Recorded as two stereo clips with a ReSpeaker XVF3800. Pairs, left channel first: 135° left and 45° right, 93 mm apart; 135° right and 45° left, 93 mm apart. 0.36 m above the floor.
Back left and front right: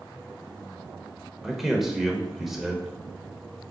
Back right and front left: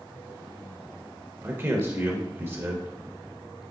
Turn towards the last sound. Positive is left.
turn(degrees=40)